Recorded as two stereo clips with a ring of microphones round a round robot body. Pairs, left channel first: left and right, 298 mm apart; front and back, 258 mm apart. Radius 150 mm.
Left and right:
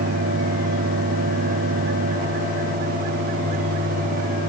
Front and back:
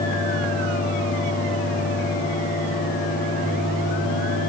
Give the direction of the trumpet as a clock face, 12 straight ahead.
I don't hear a trumpet.